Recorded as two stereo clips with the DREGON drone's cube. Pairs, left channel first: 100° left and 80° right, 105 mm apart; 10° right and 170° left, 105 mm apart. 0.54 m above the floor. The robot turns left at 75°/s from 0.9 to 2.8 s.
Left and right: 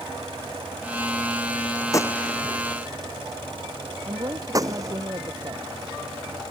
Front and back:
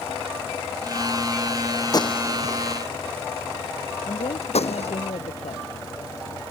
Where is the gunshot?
45° left; by 5.0 s 25° right.